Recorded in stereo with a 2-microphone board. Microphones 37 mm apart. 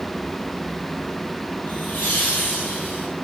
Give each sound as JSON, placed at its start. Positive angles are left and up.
{"t": 1.7, "sound": "laughter", "side_deg": 65, "distance_m": 3.5}